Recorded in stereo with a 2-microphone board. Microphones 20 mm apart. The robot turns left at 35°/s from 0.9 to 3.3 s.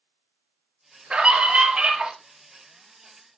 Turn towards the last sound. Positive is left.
turn(degrees=-160)